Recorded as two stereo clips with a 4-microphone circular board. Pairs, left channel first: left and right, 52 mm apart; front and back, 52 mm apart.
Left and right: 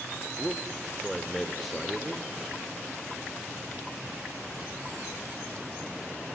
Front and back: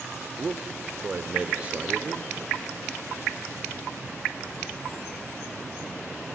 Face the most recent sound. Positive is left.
turn(degrees=170)